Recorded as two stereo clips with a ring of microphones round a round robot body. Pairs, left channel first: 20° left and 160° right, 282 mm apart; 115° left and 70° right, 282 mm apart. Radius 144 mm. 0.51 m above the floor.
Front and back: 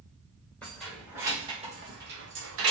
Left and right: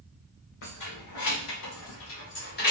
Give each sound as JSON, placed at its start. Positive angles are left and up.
{"t": 0.6, "sound": "keys jangling", "azimuth_deg": 110, "distance_m": 1.2}